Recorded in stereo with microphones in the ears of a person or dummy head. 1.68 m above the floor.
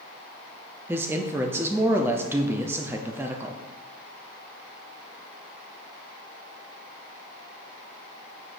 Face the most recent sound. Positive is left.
turn(degrees=-10)  # may be behind; listen again after turning